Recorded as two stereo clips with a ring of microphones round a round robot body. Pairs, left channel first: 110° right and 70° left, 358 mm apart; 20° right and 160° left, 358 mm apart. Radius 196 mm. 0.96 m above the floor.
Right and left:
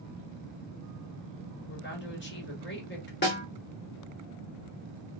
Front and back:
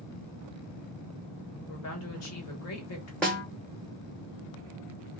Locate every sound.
1.7 s a woman speaking: 60° right, 1.4 m
3.2 s a snare drum: 105° right, 0.7 m